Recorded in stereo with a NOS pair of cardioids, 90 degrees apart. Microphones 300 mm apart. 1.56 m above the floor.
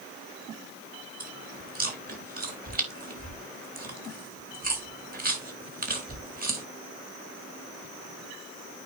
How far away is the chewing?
About 3.5 m.